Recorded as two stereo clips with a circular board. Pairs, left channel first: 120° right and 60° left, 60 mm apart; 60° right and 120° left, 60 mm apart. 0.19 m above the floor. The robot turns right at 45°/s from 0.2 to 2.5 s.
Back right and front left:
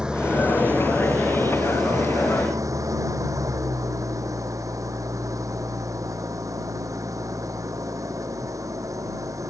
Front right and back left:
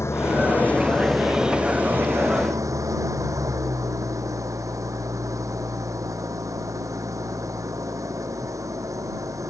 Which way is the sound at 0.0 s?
15° right.